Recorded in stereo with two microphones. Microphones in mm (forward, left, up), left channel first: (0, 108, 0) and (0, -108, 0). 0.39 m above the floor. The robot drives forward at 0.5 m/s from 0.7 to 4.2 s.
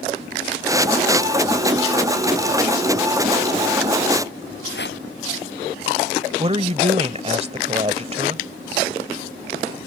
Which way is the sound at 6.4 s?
30° right (ahead or behind).